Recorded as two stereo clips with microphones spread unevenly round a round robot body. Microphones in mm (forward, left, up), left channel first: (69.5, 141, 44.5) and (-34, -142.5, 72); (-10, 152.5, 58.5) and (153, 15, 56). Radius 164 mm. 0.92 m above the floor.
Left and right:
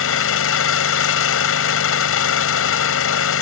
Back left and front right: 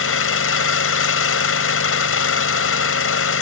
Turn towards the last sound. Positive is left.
turn(degrees=120)